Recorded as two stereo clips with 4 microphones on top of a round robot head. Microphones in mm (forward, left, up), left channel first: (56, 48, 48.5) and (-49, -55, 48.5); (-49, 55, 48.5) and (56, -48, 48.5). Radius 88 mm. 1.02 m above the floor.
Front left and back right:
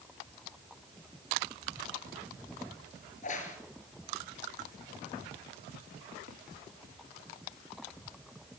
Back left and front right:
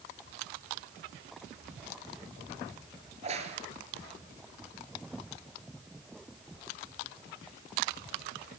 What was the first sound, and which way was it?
A crack, 5° left.